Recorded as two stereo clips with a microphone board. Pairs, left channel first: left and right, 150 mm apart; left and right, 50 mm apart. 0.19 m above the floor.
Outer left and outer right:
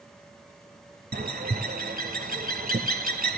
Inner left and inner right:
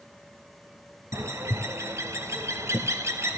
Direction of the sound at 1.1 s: 75° right (ahead or behind).